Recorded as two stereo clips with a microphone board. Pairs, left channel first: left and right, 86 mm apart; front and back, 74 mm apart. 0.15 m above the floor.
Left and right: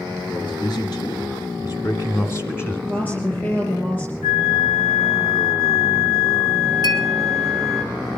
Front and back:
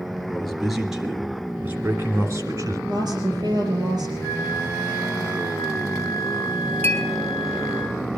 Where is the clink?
60° left, 2.5 m.